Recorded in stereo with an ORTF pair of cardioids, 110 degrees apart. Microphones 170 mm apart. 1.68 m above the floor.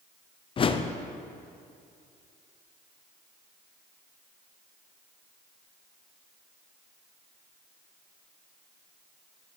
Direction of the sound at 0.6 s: 35° left.